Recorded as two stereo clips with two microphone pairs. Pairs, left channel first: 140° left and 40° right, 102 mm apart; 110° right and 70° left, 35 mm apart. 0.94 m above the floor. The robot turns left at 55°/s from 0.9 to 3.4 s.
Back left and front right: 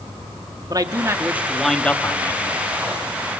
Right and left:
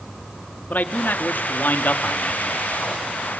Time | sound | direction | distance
0.7 | a man speaking | 90° right | 1.8 m